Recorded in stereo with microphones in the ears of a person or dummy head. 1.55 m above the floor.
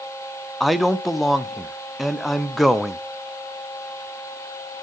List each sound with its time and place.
0.6 s a man speaking: 5° left (ahead or behind), 0.6 m